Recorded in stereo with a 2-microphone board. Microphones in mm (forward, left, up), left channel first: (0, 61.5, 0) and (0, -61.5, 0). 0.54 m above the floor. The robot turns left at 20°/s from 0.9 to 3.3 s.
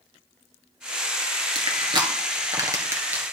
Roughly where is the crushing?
Right.